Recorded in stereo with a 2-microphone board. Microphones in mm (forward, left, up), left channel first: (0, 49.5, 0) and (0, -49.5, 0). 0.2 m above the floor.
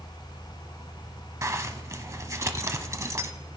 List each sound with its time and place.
1.4 s a zipper: 30° right (ahead or behind), 0.8 m